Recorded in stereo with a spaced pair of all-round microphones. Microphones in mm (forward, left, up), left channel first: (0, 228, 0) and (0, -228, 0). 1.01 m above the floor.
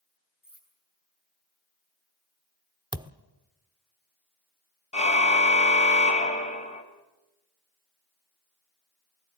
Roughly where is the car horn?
Centre.